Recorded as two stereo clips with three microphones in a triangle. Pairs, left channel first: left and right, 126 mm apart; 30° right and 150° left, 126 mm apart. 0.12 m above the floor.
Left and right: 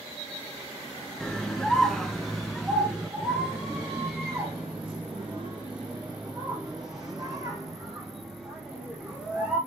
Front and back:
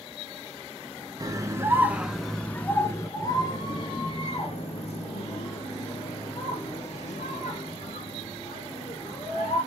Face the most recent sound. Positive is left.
turn(degrees=-5)